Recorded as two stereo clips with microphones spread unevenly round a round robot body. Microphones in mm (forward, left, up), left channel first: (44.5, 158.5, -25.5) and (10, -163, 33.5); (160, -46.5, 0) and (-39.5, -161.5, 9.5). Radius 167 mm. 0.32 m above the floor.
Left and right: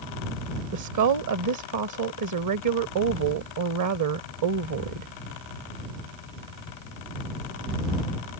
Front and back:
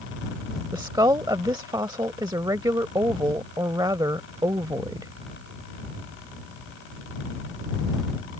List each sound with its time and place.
0.7 s a woman speaking: 80° right